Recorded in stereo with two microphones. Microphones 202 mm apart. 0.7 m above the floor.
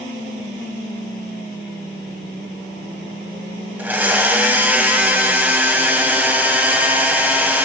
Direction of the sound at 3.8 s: 10° right (ahead or behind).